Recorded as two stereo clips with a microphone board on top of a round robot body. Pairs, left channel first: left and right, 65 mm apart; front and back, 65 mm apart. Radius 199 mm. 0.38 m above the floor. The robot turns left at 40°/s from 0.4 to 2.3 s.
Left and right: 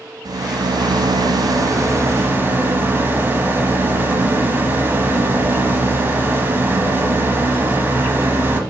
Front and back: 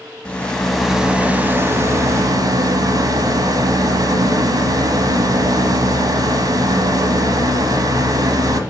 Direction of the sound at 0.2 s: 75° right.